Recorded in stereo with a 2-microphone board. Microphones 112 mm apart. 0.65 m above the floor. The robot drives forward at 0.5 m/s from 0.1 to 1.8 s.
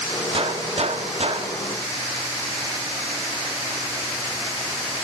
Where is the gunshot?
50° right (ahead or behind), 0.6 m.